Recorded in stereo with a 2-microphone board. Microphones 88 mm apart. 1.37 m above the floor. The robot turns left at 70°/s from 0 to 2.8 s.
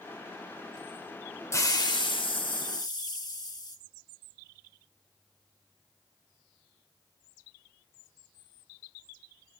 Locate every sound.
1.5 s a hiss: 145° left, 1.2 m; by 3.8 s 55° left, 1.2 m